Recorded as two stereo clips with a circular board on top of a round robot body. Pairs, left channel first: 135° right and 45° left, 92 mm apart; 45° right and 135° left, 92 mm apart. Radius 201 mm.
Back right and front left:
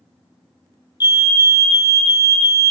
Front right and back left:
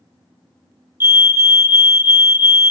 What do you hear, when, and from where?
1.0 s a fire alarm: 165° right, 2.5 m